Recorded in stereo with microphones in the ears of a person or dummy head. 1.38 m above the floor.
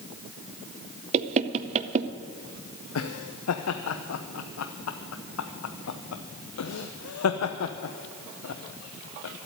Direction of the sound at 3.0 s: 85° left.